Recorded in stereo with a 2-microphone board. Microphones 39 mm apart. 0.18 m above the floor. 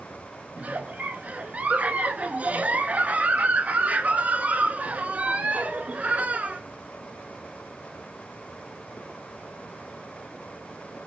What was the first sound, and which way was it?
A giggle, 45° right (ahead or behind).